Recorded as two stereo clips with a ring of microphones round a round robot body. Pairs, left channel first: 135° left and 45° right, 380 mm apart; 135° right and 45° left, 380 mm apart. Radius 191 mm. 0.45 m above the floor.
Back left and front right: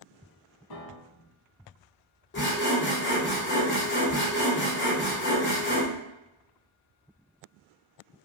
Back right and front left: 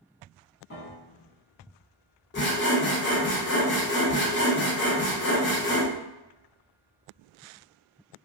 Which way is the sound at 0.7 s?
165° left.